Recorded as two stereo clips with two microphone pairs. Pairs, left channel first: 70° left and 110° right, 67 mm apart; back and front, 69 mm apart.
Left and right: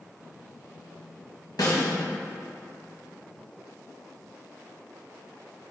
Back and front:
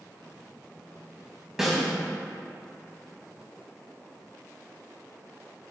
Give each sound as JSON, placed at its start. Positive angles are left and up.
{"t": 1.6, "sound": "a snare drum", "azimuth_deg": 85, "distance_m": 1.9}